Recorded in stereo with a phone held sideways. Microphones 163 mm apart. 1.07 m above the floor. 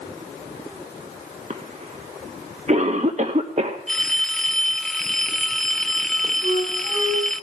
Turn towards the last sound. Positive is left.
turn(degrees=-55)  # may be behind; listen again after turning